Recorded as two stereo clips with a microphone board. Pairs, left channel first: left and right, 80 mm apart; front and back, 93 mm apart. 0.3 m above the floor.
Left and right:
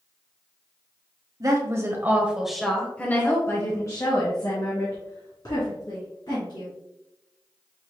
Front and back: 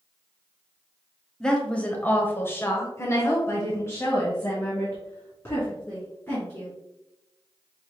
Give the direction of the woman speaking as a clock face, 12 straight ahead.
3 o'clock.